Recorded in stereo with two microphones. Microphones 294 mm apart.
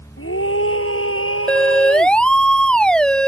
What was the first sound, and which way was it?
A scream, 45° left (ahead or behind).